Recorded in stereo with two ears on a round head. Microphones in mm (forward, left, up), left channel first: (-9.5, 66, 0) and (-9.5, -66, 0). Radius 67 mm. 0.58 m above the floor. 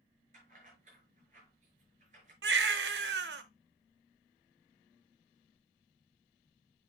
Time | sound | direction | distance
0.3 | keys jangling | 50° right (ahead or behind) | 6 m
2.4 | a baby crying | 85° right | 0.8 m